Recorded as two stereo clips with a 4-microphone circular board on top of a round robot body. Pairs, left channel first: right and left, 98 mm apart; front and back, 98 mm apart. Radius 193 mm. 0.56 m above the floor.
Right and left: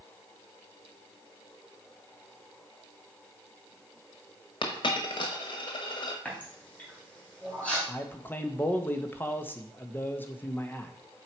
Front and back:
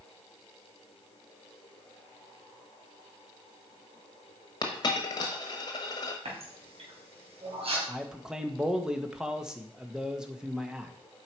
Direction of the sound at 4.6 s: 50° right.